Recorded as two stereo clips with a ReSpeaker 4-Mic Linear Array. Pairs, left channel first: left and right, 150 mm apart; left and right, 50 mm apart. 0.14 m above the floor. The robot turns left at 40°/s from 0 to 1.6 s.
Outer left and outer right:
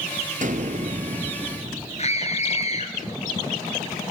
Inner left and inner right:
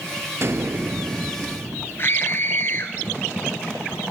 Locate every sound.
0.4 s an explosion: 105° right, 1.5 m; by 2.1 s 155° right, 1.5 m
2.0 s a scream: 45° left (ahead or behind), 1.8 m